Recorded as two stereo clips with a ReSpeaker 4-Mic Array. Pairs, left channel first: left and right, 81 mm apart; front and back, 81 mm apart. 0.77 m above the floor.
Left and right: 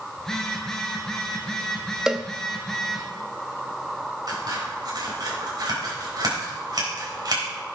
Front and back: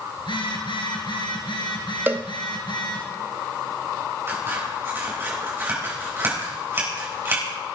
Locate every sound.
0.2 s a phone buzzing: 10° left, 2.5 m
2.1 s a cowbell: 160° right, 0.6 m
4.3 s scissors: 120° right, 4 m